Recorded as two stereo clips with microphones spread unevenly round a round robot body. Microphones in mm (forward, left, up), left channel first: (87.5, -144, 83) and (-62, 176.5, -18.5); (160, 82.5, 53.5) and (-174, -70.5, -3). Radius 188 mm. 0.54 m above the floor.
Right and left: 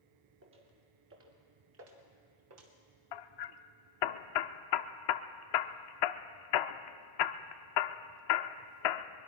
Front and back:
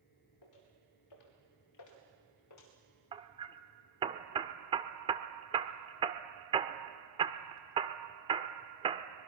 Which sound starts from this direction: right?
Hammering, at 3.1 s.